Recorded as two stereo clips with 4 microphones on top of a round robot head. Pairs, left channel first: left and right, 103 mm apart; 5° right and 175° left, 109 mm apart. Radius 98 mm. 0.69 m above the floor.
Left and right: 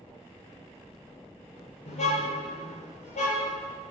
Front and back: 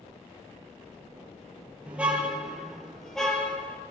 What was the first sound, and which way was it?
A car horn, 95° left.